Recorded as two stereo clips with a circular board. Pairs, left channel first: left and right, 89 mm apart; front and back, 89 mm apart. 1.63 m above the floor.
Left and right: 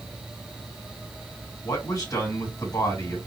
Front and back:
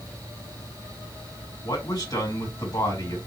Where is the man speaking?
40° left, 3 m.